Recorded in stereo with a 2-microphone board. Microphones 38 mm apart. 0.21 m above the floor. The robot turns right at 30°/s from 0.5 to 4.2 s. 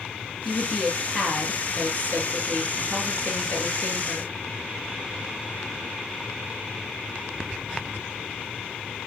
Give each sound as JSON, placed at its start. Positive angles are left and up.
{"t": 0.5, "sound": "a woman speaking", "azimuth_deg": 0, "distance_m": 3.5}